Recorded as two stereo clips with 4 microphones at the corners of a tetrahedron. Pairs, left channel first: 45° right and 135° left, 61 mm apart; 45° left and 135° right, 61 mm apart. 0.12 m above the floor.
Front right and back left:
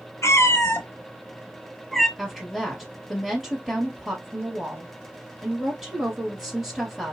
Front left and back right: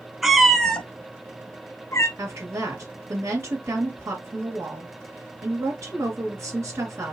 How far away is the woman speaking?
About 2 m.